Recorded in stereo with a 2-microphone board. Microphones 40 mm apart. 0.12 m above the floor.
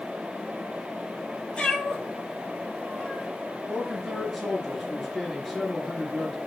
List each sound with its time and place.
1.6 s a cat meowing: 25° left (ahead or behind), 0.7 m
3.7 s a man speaking: centre (ahead or behind), 1.7 m